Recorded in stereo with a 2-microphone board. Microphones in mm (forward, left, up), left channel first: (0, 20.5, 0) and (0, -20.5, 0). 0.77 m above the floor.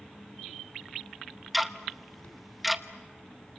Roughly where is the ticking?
Centre.